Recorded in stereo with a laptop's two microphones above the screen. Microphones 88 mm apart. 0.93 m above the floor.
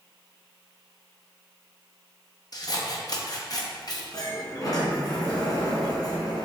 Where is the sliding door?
45° left (ahead or behind), 2 m.